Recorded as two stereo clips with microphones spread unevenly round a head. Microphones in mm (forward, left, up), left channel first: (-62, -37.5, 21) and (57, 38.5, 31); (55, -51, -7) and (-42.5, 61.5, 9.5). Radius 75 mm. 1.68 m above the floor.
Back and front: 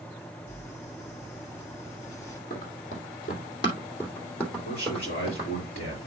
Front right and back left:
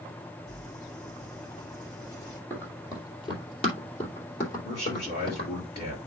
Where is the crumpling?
85° right, 4 m.